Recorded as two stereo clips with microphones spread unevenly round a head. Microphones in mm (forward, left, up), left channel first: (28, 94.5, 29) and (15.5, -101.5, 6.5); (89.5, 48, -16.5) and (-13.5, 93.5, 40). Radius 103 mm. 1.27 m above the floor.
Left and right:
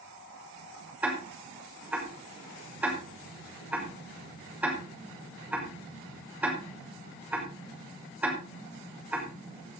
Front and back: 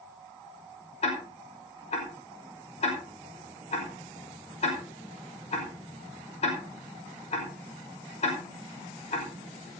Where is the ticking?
10° right, 5.5 m.